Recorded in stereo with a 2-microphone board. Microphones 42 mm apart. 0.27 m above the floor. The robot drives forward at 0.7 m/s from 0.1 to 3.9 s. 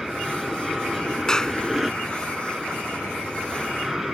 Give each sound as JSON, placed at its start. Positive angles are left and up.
{"t": 0.0, "sound": "an aircraft", "side_deg": -5}
{"t": 1.3, "sound": "a clap", "side_deg": 15}